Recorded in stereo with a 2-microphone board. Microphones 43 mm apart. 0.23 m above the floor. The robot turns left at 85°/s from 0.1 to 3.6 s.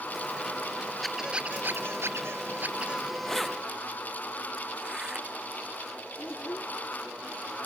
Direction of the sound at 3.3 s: 15° left (ahead or behind).